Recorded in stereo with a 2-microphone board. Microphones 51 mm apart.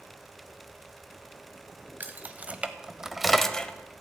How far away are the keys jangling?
About 0.9 m.